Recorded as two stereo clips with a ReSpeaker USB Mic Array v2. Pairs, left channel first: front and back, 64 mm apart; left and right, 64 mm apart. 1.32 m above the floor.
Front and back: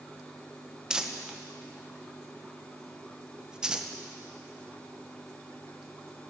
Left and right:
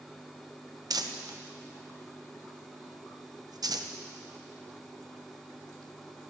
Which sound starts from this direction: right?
Crumpling, at 0.9 s.